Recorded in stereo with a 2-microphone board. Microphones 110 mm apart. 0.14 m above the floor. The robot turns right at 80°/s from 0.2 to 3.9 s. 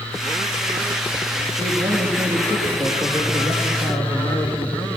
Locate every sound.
1.6 s a man speaking: 90° right, 4 m; by 4.9 s 95° left, 4 m